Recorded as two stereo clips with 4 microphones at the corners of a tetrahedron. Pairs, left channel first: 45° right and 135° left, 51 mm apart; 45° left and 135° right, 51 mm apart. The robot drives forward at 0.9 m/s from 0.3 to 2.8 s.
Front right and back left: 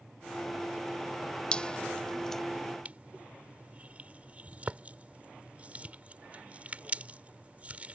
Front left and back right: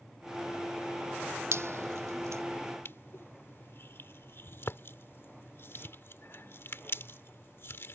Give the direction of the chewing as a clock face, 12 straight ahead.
No chewing in this recording.